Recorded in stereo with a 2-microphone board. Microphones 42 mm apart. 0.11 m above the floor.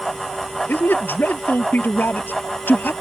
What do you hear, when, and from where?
0.7 s a man speaking: 55° left (ahead or behind)